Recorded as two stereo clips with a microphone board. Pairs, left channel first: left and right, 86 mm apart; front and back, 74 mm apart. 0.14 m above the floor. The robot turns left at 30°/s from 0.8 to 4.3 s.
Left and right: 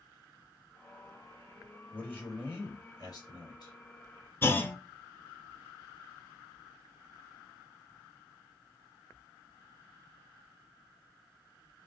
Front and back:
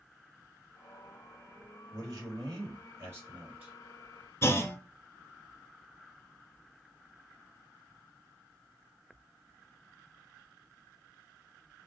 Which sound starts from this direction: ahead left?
A clunk, at 4.4 s.